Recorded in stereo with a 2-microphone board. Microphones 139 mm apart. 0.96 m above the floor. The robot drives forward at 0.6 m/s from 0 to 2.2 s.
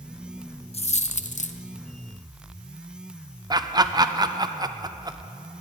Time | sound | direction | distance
0.7 | a dropped coin | 45° left (ahead or behind) | 0.6 m
3.5 | laughter | 30° right (ahead or behind) | 0.6 m